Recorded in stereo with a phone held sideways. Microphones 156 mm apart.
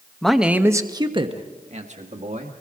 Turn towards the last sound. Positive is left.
turn(degrees=-55)  # may be behind; listen again after turning